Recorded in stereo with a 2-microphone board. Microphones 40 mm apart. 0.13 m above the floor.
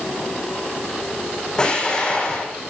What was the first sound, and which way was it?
An explosion, 20° left (ahead or behind).